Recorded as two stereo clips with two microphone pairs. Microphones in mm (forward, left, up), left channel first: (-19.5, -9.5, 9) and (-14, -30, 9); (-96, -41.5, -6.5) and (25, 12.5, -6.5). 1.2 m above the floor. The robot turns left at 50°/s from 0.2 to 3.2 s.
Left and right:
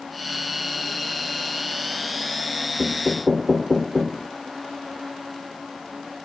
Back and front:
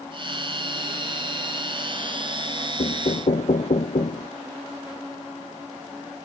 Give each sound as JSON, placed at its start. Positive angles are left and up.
{"t": 2.8, "sound": "knocking", "azimuth_deg": -155}